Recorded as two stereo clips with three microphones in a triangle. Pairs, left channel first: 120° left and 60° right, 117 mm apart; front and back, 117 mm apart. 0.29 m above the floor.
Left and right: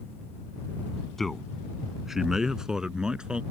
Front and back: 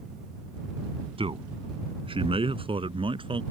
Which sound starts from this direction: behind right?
A man speaking, at 1.2 s.